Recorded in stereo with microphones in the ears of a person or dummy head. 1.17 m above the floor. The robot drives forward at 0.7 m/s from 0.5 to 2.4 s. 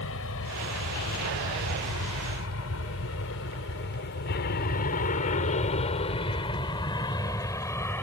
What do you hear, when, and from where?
0.0 s an aircraft: 75° left (ahead or behind); by 8.0 s 10° left (ahead or behind)